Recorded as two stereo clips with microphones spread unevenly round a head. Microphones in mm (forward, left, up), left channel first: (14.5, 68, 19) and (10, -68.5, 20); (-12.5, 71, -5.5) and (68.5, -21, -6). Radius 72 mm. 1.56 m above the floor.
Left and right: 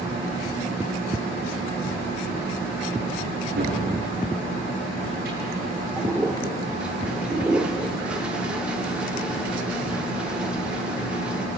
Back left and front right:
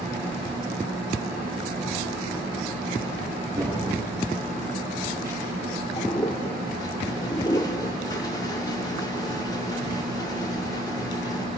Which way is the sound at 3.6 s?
120° right.